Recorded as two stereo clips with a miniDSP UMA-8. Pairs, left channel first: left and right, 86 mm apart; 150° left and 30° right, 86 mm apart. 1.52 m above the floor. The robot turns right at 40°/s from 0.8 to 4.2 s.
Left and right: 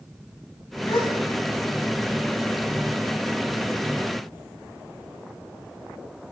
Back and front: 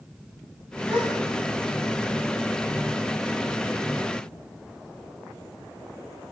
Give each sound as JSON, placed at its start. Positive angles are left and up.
{"t": 0.9, "sound": "a gasp", "azimuth_deg": 45, "distance_m": 9.0}